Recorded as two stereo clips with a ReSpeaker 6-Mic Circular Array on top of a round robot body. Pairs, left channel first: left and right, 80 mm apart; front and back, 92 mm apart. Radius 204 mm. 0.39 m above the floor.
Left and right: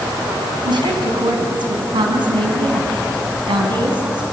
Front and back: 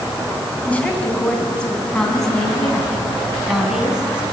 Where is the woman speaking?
75° right, 6 m; by 4.2 s 100° right, 5.5 m.